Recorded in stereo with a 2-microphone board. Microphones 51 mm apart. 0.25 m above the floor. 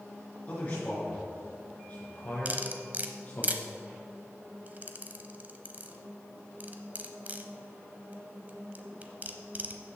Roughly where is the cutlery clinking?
Right.